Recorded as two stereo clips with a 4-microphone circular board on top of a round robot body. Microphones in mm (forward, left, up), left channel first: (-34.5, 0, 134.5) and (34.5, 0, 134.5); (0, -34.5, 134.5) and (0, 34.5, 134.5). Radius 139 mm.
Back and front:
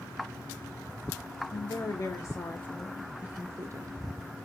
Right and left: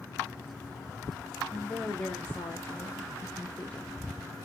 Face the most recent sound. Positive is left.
turn(degrees=-15)